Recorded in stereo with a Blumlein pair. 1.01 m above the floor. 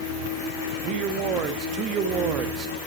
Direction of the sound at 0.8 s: 30° right.